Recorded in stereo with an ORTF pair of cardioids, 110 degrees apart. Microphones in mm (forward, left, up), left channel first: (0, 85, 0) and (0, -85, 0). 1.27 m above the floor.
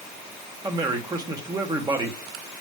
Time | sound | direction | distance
0.6 | a man speaking | 25° right | 1.5 m